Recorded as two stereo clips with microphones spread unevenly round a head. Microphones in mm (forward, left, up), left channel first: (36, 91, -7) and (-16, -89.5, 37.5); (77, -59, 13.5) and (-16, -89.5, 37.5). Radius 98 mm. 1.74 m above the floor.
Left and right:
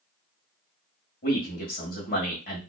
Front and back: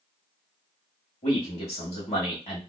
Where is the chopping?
I don't hear chopping.